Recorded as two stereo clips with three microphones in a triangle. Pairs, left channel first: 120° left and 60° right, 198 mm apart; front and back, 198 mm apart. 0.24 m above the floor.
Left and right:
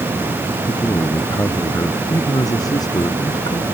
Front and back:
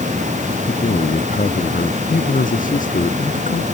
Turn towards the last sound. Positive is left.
turn(degrees=50)